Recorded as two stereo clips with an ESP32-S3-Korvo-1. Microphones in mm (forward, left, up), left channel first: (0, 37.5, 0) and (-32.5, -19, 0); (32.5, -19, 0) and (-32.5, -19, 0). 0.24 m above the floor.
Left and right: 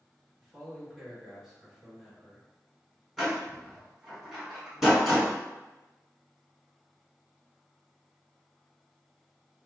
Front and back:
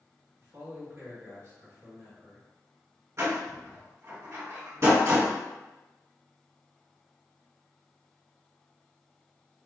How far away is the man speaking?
About 2.0 m.